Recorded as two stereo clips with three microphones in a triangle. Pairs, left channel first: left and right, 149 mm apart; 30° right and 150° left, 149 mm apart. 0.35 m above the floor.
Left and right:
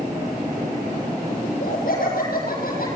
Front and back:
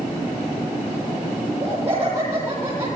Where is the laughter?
75° left, 9 m; by 2.9 s 80° left, 9.5 m.